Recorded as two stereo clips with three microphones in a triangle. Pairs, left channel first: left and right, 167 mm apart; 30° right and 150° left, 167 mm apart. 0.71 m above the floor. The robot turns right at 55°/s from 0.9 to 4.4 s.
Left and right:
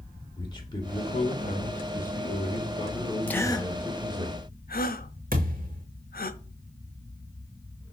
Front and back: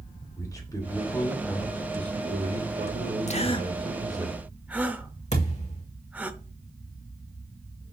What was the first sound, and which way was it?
A man speaking, 30° left.